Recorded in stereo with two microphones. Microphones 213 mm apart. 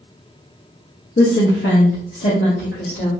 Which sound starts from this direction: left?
A woman speaking, at 1.2 s.